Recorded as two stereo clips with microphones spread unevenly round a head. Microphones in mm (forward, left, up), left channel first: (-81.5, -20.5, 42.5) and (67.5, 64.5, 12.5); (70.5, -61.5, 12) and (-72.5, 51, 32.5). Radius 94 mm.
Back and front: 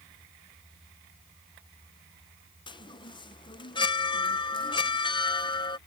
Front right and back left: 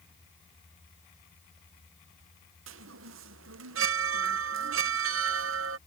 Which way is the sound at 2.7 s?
145° left.